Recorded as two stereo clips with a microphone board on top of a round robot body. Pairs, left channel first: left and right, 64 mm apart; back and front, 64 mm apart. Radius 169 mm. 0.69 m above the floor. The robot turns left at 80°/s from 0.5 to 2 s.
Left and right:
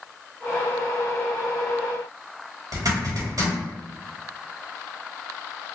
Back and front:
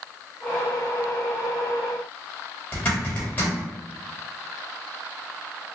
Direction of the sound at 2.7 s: 120° right.